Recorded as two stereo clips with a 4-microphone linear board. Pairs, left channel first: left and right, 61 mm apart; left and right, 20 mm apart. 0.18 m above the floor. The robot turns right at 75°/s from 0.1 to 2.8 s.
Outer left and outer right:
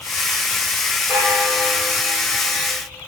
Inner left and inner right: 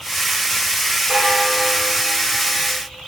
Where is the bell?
45° right, 5 m; by 2.7 s 75° left, 5 m.